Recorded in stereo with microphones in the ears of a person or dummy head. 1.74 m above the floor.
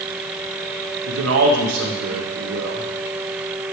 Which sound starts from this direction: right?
A man speaking, at 1.1 s.